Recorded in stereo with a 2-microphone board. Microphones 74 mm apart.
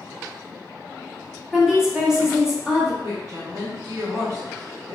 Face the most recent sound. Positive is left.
turn(degrees=-50)  # may be behind; listen again after turning